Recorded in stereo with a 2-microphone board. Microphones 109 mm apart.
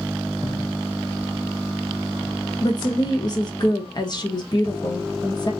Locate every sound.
2.6 s a woman speaking: 40° left (ahead or behind), 0.8 m